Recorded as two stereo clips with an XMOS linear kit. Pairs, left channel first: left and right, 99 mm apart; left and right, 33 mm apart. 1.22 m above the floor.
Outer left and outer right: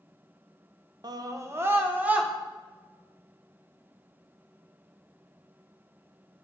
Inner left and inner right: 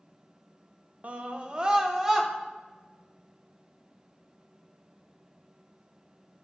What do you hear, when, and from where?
1.0 s a scream: 45° right (ahead or behind), 0.6 m; by 2.3 s 15° right (ahead or behind), 1.1 m